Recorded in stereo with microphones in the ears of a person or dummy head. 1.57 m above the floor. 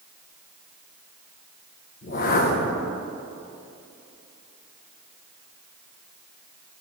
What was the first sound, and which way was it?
A whoosh, 50° left (ahead or behind).